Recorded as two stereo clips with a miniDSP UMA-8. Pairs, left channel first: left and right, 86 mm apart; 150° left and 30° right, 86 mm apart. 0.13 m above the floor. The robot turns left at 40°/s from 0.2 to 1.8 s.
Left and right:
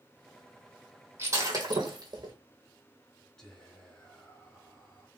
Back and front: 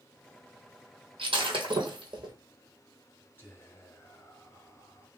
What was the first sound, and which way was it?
Breaking glass, 30° right.